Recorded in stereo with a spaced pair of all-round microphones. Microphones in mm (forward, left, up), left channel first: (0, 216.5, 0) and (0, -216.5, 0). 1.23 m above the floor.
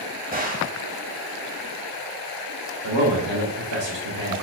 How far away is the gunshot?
About 1.1 m.